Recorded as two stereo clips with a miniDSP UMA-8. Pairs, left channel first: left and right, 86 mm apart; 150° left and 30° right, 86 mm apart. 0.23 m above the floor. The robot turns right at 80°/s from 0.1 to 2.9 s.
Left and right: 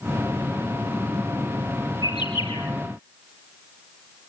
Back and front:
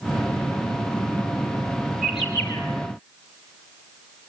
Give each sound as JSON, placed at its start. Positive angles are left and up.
{"t": 2.0, "sound": "a bird", "azimuth_deg": 50, "distance_m": 5.0}